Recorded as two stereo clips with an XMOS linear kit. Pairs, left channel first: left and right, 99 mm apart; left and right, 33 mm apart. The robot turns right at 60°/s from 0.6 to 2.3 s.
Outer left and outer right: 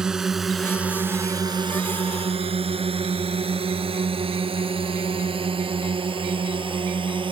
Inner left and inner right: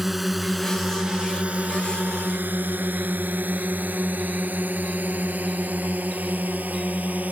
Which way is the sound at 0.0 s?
5° right (ahead or behind).